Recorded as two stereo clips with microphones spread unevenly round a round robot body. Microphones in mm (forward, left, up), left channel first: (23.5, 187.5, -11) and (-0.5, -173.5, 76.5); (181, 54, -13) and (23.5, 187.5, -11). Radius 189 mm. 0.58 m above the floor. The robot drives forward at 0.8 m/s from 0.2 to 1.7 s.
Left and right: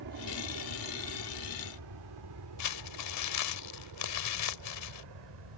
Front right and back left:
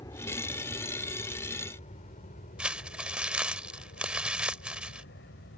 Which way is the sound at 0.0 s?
115° right.